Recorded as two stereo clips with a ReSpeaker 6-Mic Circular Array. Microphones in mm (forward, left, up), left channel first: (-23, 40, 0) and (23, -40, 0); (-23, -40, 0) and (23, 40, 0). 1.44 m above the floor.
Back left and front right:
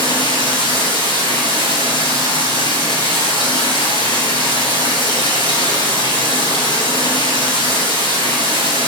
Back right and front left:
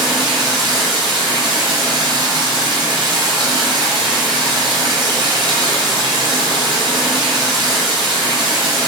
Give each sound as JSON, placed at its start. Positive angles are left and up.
{"t": 0.0, "sound": "running water", "azimuth_deg": 90, "distance_m": 4.5}